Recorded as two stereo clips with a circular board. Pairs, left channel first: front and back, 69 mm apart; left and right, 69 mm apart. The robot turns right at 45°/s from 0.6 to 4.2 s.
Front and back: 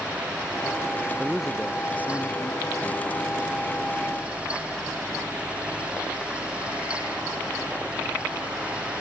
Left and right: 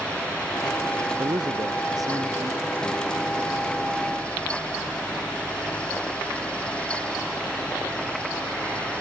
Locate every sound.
1.2 s a man speaking: 100° right; by 3.3 s 5° right